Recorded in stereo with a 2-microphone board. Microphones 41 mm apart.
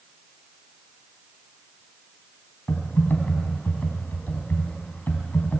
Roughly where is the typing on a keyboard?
Left.